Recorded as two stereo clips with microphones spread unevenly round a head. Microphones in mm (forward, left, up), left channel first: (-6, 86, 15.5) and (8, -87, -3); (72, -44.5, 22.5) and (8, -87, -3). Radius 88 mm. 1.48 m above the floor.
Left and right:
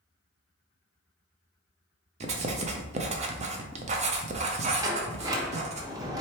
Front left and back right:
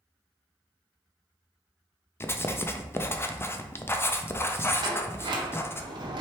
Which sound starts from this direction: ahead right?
Writing, at 2.2 s.